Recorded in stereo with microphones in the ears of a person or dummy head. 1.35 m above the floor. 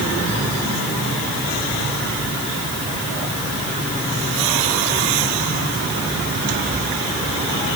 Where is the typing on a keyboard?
I don't hear typing on a keyboard.